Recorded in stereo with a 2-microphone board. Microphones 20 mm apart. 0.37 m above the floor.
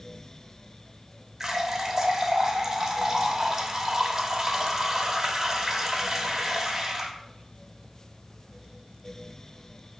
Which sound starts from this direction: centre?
A running tap, at 1.4 s.